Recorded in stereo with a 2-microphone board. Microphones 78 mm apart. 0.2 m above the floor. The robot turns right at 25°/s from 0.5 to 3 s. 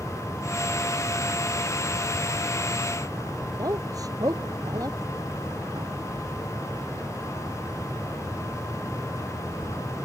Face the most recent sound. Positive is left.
turn(degrees=-55)  # may be behind; listen again after turning